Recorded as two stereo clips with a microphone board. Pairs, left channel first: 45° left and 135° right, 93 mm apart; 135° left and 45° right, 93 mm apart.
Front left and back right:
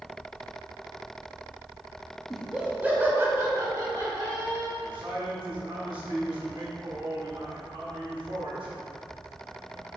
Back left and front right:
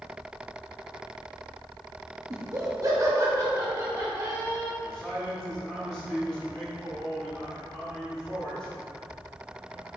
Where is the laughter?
50° right, 1.2 m; by 4.7 s 95° right, 2.5 m.